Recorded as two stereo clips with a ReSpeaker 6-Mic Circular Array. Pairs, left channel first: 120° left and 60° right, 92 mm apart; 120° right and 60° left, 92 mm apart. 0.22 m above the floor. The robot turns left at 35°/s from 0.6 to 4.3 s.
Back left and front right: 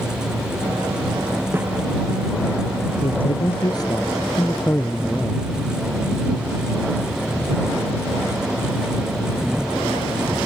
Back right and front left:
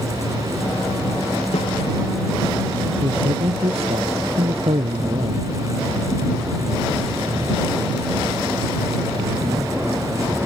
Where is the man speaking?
100° left; by 5.5 s 55° left.